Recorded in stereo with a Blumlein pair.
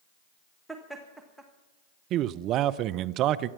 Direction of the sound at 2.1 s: 35° right.